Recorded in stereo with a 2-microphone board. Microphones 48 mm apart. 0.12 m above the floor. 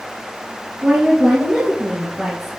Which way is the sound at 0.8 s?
30° right (ahead or behind).